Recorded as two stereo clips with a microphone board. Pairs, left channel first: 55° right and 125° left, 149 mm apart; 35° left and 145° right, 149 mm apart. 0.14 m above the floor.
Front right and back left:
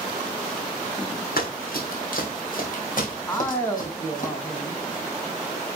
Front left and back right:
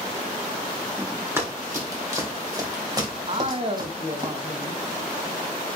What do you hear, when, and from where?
1.4 s running footsteps: 75° right, 3 m; by 4.3 s 90° right, 5 m
3.3 s a man speaking: 125° right, 1.3 m